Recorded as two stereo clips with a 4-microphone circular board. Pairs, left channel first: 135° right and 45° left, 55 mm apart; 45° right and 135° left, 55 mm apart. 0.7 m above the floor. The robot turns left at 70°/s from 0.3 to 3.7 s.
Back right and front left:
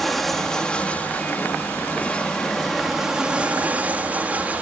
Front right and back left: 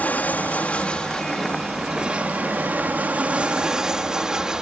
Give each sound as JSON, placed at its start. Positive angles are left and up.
{"t": 0.0, "sound": "an aircraft", "azimuth_deg": -50}